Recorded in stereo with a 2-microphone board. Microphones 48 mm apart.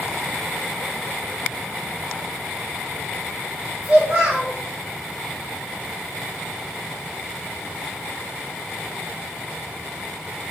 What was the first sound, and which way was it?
A child speaking, 30° right (ahead or behind).